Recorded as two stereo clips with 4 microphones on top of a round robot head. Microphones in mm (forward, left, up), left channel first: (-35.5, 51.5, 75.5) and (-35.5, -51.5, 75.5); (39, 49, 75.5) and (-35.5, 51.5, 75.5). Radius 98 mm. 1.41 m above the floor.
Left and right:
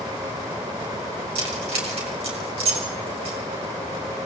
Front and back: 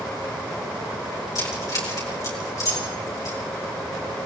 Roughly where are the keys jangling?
Ahead right.